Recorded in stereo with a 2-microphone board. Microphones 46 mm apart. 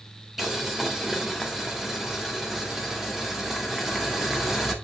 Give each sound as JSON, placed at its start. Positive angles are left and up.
{"t": 0.4, "sound": "boiling", "side_deg": -10, "distance_m": 1.5}